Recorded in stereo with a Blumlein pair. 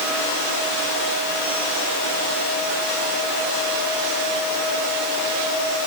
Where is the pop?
I don't hear a pop.